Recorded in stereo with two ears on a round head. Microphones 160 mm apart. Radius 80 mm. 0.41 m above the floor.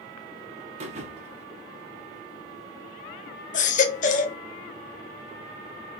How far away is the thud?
About 1.3 m.